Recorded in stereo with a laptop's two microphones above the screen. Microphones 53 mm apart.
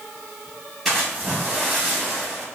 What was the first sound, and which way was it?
A splash, 5° left (ahead or behind).